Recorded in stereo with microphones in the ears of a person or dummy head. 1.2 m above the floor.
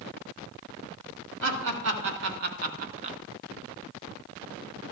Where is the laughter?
65° right (ahead or behind), 2.5 m; by 3.2 s 25° right (ahead or behind), 0.8 m.